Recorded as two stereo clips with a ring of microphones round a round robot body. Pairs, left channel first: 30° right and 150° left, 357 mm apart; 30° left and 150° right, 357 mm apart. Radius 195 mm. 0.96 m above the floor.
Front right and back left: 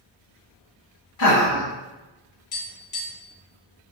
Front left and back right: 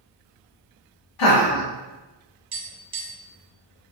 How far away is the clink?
I don't hear a clink.